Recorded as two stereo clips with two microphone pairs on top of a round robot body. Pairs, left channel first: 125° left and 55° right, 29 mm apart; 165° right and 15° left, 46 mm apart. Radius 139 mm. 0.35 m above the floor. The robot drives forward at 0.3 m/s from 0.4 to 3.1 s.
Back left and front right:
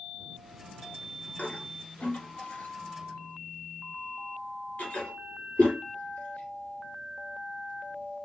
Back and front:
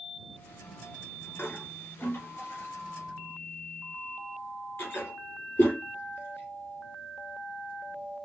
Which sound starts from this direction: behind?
A toilet flushing, at 1.4 s.